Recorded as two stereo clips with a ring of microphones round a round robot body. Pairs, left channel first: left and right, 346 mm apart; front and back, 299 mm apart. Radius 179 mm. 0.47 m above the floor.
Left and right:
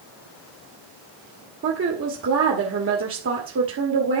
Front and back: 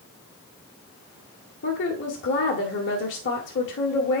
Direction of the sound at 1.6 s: 45° right.